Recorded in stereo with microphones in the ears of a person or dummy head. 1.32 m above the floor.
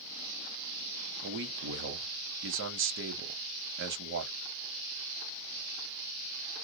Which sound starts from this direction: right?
A man speaking, at 1.2 s.